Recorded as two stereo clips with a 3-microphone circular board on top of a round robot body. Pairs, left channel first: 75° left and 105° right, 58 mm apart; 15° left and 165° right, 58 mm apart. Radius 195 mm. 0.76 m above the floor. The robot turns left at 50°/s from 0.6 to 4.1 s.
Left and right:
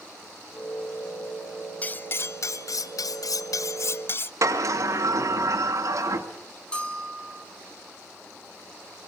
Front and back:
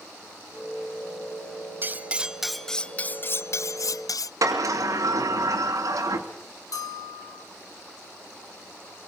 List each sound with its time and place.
1.8 s cutlery clinking: 140° left, 0.6 m; by 4.3 s 25° left, 0.6 m
4.4 s a sliding door: 135° right, 2.5 m
6.7 s a bell: straight ahead, 4 m